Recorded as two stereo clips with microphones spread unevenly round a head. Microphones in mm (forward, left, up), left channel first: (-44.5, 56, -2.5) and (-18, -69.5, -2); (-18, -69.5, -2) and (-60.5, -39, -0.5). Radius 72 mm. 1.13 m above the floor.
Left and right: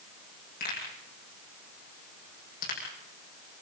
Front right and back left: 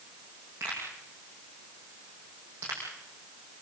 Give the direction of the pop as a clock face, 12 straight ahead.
10 o'clock.